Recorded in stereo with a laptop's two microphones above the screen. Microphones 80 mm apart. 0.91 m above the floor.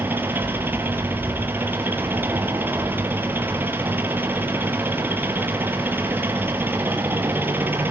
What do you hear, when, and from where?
0.0 s an engine running: 25° right (ahead or behind), 5 m